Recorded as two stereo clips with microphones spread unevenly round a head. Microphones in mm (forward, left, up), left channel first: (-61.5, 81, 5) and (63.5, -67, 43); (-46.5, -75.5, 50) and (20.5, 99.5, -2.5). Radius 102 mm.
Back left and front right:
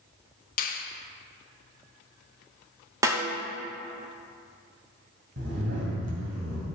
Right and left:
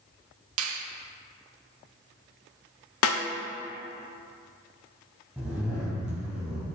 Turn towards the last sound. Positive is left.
turn(degrees=-25)